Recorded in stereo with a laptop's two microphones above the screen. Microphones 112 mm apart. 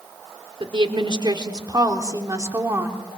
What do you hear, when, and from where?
0.6 s a woman speaking: 50° right (ahead or behind), 2.5 m; by 3.0 s 20° right (ahead or behind), 2.5 m